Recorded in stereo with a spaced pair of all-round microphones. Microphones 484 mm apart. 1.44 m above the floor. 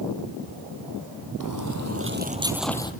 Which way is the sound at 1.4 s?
45° right (ahead or behind).